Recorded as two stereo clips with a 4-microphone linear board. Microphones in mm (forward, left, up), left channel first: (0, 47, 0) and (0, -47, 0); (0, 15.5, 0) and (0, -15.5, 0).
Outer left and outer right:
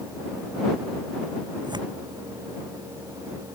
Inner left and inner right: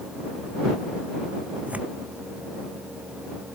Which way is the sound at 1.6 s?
50° right (ahead or behind).